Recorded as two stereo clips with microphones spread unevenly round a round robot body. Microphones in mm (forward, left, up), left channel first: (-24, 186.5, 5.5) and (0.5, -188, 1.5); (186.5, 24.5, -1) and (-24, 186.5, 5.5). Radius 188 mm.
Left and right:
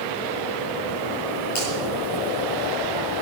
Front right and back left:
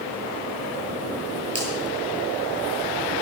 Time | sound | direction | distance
1.6 | a finger snap | 70° left | 10 m